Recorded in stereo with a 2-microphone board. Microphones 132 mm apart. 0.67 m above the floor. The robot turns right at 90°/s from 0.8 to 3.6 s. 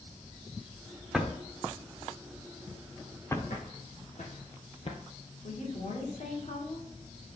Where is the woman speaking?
60° left (ahead or behind), 2 m.